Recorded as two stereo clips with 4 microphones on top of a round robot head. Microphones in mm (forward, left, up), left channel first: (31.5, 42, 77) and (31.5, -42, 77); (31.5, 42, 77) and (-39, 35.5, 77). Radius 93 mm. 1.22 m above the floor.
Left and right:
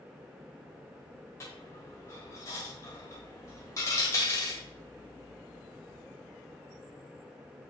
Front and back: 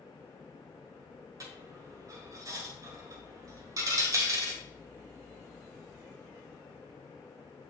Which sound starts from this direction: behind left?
A dropped coin, at 1.4 s.